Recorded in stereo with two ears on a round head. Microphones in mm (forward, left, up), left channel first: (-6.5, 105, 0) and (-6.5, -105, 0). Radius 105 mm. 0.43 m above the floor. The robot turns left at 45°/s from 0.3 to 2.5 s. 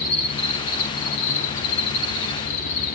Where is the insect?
160° left, 9 m; by 3.0 s 60° left, 9 m.